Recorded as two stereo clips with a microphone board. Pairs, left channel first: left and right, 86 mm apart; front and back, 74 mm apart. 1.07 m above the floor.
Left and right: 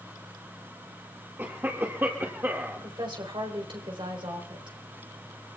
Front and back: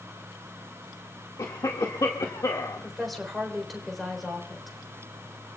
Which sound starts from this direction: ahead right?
A cough, at 1.4 s.